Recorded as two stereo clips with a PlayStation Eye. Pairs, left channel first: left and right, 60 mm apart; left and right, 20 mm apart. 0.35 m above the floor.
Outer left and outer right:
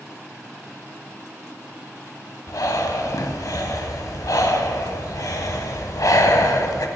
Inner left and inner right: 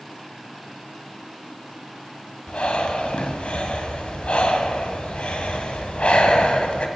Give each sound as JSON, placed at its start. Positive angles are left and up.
{"t": 2.5, "sound": "breathing", "side_deg": 80, "distance_m": 0.6}